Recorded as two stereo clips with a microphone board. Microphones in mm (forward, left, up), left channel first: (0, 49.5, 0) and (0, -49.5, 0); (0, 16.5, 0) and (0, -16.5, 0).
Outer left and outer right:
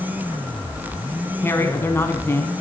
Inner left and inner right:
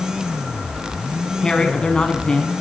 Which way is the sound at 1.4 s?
25° left (ahead or behind).